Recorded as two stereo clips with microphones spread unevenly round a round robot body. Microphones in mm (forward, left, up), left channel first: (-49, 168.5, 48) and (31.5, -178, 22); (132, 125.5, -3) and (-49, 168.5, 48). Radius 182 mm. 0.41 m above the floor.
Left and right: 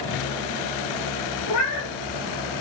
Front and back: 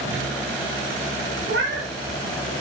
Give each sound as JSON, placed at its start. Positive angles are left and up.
{"t": 1.5, "sound": "a cat meowing", "azimuth_deg": 150, "distance_m": 1.3}